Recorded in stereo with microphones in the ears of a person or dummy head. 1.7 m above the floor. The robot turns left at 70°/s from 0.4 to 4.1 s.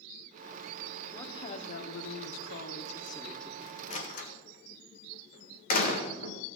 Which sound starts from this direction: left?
A door slam, at 3.9 s.